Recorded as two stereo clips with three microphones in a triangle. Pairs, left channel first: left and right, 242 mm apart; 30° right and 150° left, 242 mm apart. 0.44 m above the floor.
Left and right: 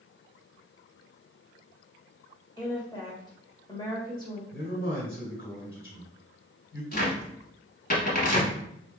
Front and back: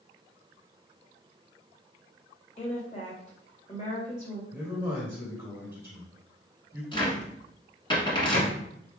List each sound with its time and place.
2.6 s a woman speaking: 25° left, 1.7 m
4.5 s a man speaking: 70° left, 2 m
6.9 s a cupboard door: 40° left, 1.4 m